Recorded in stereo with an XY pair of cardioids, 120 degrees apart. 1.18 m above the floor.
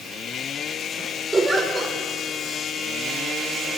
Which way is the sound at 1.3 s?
20° right.